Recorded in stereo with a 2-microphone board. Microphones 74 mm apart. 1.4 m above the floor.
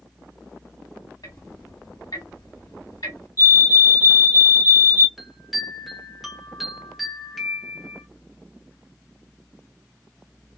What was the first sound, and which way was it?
Ticking, 60° left (ahead or behind).